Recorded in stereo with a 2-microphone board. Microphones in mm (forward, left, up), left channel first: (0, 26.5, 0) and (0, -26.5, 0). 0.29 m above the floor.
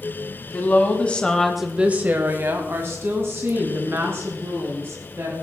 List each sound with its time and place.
0.5 s a woman speaking: 35° left (ahead or behind), 2 m; by 5.3 s 50° right (ahead or behind), 5.5 m